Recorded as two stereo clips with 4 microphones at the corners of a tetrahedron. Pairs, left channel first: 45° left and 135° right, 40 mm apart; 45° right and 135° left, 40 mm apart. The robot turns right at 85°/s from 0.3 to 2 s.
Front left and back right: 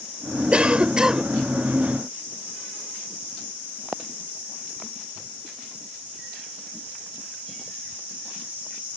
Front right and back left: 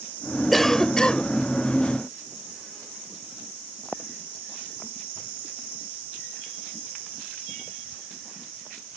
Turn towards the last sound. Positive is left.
turn(degrees=-5)